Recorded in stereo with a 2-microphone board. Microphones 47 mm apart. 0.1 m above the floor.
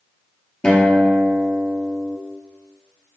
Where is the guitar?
25° left (ahead or behind), 0.8 m.